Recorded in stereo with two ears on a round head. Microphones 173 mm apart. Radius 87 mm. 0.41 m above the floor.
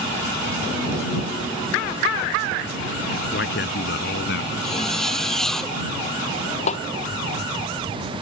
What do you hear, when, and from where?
3.3 s a man speaking: 60° left (ahead or behind); by 4.5 s 65° left (ahead or behind)
4.6 s a zipper: centre (ahead or behind)
6.7 s a snare drum: 35° left (ahead or behind)